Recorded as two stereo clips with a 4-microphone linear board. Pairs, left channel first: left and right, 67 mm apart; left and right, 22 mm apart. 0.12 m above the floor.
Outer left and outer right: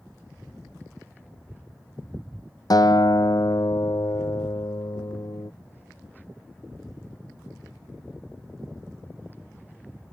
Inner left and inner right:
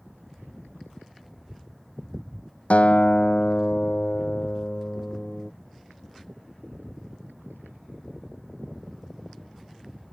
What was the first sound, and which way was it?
A guitar, 70° left (ahead or behind).